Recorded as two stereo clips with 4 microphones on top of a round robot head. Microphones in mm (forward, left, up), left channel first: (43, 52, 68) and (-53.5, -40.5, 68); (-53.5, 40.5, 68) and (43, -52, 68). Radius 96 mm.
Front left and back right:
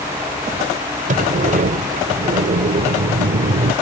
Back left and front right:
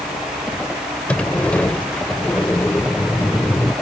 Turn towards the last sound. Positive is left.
turn(degrees=-145)